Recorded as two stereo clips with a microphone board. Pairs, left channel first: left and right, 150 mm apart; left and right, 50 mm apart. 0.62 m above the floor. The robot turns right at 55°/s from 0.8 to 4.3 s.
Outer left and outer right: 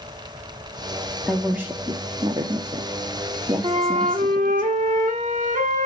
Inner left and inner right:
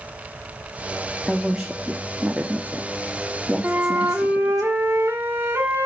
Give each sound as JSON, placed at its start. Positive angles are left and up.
{"t": 1.3, "sound": "a woman speaking", "side_deg": 0, "distance_m": 0.9}
{"t": 3.6, "sound": "a flute", "azimuth_deg": -135, "distance_m": 1.8}